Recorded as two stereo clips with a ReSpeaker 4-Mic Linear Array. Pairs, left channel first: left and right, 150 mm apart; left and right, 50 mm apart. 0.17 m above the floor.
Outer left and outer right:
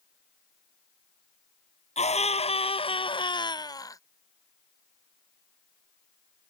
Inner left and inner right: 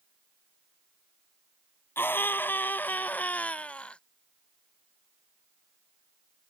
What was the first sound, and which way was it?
A scream, 45° left (ahead or behind).